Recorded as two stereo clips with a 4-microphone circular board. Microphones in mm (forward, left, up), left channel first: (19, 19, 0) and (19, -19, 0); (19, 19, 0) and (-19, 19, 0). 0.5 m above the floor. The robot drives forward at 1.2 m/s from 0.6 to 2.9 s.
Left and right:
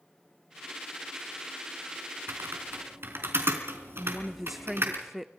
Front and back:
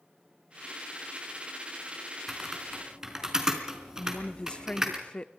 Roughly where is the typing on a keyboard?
Right.